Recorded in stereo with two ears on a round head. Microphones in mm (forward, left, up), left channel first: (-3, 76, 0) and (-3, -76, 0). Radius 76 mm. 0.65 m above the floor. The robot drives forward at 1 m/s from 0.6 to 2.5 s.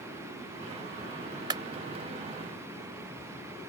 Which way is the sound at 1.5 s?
25° right (ahead or behind).